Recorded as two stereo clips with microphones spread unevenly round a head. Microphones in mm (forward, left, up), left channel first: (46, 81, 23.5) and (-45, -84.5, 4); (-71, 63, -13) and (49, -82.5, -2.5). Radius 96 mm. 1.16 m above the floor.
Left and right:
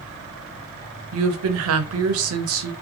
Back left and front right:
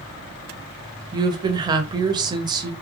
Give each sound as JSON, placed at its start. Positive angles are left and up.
{"t": 1.1, "sound": "a woman speaking", "azimuth_deg": -120, "distance_m": 0.6}